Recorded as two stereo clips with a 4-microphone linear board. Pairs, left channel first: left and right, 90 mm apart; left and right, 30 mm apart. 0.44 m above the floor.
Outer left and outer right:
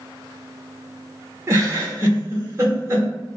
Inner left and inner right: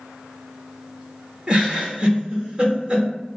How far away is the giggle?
About 0.9 m.